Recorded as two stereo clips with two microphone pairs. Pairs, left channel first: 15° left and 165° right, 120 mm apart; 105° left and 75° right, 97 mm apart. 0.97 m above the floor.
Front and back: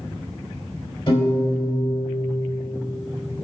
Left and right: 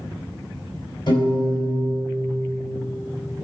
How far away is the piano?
About 3.5 m.